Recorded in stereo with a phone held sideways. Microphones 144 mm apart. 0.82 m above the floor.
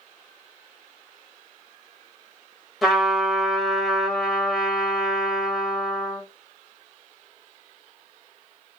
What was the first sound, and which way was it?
A trumpet, centre (ahead or behind).